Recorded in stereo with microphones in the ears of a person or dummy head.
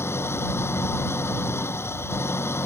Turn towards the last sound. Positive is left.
turn(degrees=10)  # may be behind; listen again after turning